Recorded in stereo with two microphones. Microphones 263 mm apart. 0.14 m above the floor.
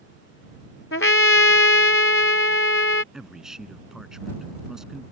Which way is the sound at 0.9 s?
50° left (ahead or behind).